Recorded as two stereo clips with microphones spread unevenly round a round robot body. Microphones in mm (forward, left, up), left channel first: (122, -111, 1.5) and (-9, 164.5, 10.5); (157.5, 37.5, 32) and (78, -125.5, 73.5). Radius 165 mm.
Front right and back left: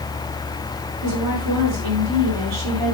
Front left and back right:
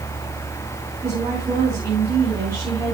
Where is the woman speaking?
160° left, 6 m.